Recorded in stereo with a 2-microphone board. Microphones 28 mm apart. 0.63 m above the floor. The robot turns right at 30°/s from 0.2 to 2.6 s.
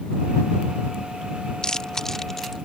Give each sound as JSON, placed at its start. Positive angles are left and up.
{"t": 1.6, "sound": "chewing", "side_deg": 30}